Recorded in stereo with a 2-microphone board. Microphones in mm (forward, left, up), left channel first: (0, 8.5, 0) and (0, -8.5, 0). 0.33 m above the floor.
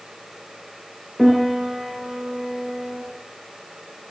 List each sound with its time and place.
1.2 s a piano: 15° right (ahead or behind), 6 m